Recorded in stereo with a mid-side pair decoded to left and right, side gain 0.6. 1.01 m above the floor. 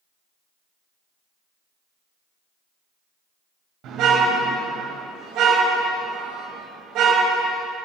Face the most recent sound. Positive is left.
turn(degrees=-65)